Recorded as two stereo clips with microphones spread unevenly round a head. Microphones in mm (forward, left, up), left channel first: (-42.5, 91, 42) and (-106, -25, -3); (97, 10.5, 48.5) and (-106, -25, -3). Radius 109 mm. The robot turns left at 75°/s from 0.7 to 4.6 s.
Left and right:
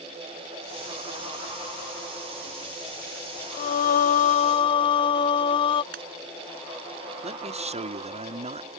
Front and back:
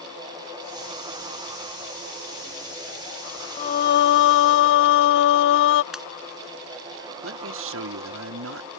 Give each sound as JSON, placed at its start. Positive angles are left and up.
{"t": 3.6, "sound": "singing", "azimuth_deg": 75}
{"t": 5.9, "sound": "a pop", "azimuth_deg": -80}
{"t": 7.2, "sound": "a man speaking", "azimuth_deg": -155}